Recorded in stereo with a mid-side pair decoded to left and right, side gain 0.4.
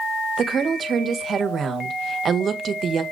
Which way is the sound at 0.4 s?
55° right.